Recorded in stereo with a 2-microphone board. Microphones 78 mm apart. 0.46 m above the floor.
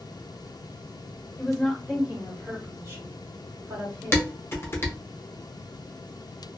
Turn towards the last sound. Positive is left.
turn(degrees=30)  # may be behind; listen again after turning